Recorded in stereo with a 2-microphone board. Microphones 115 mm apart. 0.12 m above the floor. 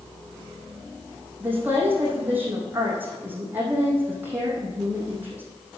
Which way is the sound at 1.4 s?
20° right (ahead or behind).